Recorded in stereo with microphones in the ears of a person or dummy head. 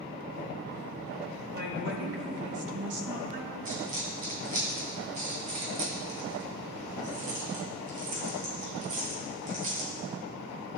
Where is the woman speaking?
55° right (ahead or behind), 2.5 m; by 3.5 s 35° right (ahead or behind), 1.8 m.